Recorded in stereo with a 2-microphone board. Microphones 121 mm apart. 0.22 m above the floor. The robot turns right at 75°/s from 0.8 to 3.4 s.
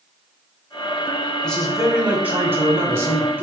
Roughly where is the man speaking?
Centre.